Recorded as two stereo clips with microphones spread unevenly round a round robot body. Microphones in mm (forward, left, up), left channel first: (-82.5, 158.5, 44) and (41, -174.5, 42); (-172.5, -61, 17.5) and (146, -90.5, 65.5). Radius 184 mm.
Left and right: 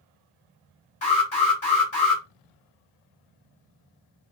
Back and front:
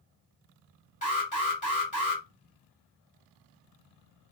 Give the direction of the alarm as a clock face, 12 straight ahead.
7 o'clock.